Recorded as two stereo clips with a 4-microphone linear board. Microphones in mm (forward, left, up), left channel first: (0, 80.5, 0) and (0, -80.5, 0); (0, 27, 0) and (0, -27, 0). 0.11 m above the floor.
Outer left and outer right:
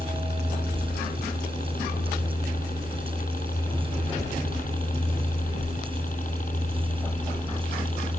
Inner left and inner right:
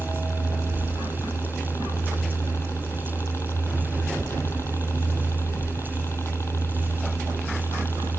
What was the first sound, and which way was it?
A helicopter, 65° left (ahead or behind).